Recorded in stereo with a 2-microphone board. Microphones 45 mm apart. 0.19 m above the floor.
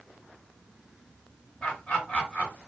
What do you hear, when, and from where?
1.6 s laughter: 25° left (ahead or behind), 2 m